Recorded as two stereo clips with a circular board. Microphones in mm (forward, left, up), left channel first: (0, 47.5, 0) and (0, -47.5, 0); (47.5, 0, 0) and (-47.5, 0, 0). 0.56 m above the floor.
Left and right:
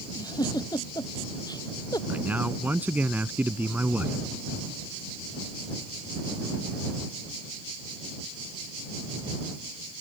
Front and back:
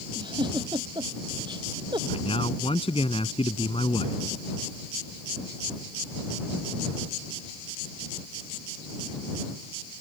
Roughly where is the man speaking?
Ahead.